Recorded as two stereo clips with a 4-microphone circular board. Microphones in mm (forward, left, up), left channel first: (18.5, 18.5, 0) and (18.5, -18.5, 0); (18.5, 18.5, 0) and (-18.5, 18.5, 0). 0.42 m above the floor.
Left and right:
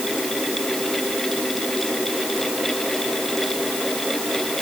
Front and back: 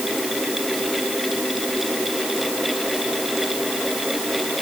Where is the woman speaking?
No woman speaking in this recording.